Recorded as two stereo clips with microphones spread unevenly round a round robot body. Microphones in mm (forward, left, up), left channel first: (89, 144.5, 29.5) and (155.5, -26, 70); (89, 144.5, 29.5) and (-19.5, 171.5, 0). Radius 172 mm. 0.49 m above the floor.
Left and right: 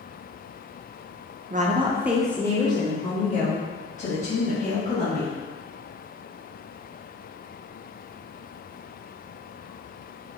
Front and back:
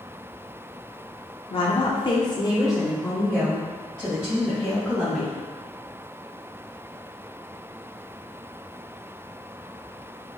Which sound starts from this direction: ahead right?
A woman speaking, at 1.5 s.